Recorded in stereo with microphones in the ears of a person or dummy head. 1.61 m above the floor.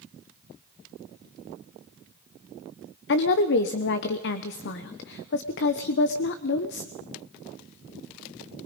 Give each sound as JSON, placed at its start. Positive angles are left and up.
{"t": 3.1, "sound": "a woman speaking", "side_deg": 65, "distance_m": 1.1}